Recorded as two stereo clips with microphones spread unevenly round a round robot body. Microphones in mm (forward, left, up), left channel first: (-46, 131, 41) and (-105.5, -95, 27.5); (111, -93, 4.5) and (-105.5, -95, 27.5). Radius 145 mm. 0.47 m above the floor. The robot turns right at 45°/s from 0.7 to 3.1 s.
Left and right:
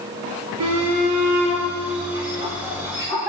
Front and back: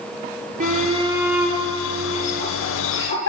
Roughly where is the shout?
Behind right.